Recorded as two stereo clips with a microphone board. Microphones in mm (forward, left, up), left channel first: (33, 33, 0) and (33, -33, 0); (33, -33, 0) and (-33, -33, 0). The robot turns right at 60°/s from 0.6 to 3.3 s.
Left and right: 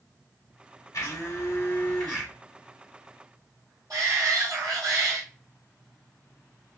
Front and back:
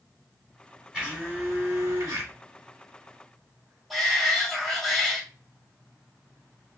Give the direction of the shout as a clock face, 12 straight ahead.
3 o'clock.